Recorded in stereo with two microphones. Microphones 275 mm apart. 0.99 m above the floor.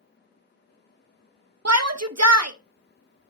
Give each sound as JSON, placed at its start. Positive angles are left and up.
{"t": 1.6, "sound": "a shout", "side_deg": -70, "distance_m": 0.8}